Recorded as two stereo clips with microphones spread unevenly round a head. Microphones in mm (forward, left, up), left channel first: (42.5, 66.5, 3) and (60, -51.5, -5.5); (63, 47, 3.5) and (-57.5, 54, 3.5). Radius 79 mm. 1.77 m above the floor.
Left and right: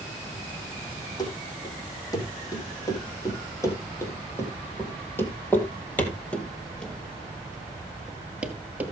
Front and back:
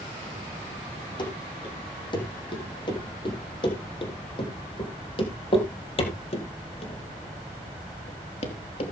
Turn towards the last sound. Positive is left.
turn(degrees=-5)